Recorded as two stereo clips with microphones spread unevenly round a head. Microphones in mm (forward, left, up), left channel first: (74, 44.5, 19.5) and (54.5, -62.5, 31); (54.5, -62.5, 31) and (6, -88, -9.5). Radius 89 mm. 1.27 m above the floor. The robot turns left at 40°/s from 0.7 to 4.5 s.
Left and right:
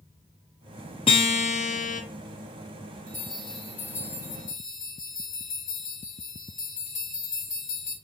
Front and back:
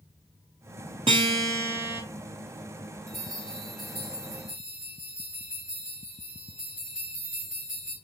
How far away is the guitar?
About 0.8 m.